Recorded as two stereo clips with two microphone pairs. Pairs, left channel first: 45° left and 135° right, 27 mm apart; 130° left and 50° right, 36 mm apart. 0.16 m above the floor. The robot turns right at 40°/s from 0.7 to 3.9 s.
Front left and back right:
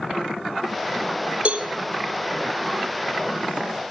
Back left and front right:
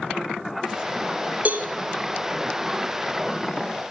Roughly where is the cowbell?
Right.